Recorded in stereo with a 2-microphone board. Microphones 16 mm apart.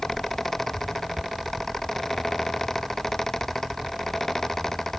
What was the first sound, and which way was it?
Only background noise.